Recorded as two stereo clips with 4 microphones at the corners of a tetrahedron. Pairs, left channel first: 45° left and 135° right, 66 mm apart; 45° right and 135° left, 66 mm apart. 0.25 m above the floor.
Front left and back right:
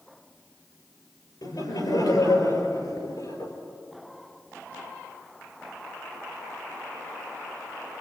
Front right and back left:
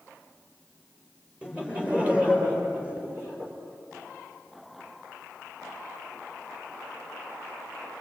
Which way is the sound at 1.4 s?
60° left.